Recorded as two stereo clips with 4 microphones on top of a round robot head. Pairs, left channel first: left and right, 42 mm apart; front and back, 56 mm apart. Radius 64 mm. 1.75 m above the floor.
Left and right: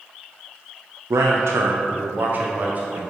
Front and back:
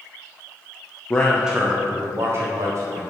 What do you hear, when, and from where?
1.1 s a man speaking: 70° right, 0.7 m; by 3.0 s 140° right, 2 m